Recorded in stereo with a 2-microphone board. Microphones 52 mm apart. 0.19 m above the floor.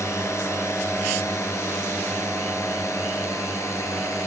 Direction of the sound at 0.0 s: 60° left (ahead or behind).